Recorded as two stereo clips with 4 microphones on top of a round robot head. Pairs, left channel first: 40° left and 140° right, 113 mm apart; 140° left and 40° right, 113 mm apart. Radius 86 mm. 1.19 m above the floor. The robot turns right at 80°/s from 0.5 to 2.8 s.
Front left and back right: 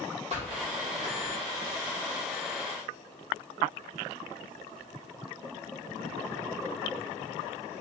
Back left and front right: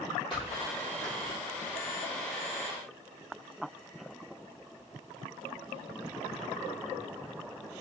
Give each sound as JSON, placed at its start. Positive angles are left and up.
{"t": 0.3, "sound": "a squeak", "azimuth_deg": -170, "distance_m": 2.0}